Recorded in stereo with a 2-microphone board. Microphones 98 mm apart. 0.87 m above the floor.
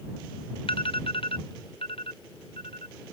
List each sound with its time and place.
0.7 s an alarm: 70° left (ahead or behind)